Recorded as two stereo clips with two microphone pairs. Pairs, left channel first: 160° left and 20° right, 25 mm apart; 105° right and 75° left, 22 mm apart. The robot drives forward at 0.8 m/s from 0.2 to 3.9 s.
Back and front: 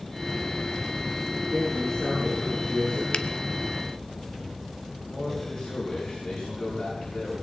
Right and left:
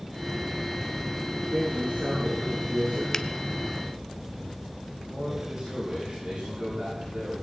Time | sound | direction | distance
1.5 | a man speaking | 95° left | 7.5 m
3.1 | a finger snap | 170° right | 0.7 m
5.1 | a man speaking | 115° left | 8 m